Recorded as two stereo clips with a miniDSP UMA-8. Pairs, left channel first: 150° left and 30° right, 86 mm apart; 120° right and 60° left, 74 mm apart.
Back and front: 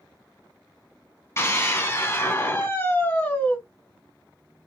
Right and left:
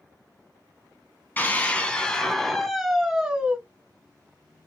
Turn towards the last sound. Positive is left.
turn(degrees=110)